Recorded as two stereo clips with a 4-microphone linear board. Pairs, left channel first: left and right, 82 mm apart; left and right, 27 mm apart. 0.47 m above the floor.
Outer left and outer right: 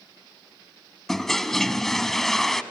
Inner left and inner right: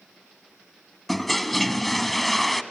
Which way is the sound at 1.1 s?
5° left (ahead or behind).